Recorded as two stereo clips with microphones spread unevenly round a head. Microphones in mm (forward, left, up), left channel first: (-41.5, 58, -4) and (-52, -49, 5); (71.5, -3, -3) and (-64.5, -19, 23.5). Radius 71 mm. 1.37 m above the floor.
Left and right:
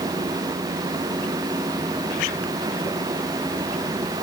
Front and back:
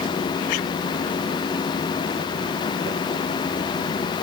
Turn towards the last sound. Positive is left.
No sound to turn to.